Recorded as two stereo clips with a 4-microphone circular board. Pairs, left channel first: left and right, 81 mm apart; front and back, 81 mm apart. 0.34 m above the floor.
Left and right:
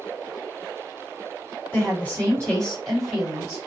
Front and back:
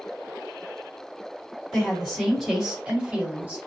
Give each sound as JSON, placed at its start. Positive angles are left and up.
{"t": 1.7, "sound": "a woman speaking", "azimuth_deg": 75, "distance_m": 1.5}